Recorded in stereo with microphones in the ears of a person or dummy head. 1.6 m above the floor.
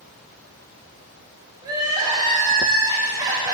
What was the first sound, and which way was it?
Crying, 20° right (ahead or behind).